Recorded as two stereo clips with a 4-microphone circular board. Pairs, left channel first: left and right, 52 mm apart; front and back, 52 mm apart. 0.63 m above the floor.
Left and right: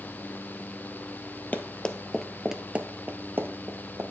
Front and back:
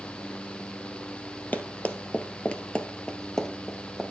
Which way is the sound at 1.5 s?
45° left.